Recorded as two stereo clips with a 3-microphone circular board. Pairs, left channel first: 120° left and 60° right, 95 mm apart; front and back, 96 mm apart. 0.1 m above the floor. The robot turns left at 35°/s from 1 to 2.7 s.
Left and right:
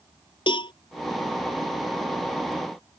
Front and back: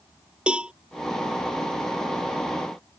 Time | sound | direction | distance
0.5 | a cowbell | 105° left | ?